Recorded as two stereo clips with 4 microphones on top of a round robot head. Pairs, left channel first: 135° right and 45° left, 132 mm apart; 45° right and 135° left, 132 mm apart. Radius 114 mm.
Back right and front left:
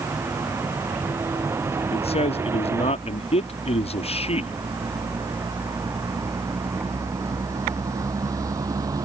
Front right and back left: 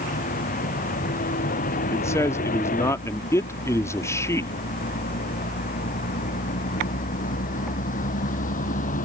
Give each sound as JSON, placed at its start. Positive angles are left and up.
{"t": 0.0, "sound": "a vehicle", "azimuth_deg": -25}
{"t": 1.9, "sound": "a man speaking", "azimuth_deg": -110}